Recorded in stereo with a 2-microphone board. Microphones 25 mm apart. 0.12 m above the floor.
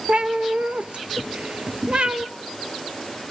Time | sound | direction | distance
0.1 | a cat meowing | 55° right (ahead or behind) | 0.6 m